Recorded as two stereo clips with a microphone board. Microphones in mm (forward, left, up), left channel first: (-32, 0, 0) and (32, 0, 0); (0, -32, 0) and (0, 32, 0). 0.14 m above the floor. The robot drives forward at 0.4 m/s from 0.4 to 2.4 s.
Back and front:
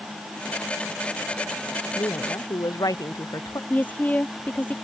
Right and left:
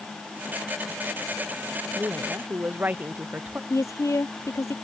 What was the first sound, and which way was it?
A woman speaking, 155° left.